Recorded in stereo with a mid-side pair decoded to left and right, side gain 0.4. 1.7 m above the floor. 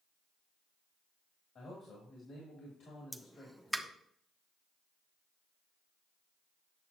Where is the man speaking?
60° left, 3 m.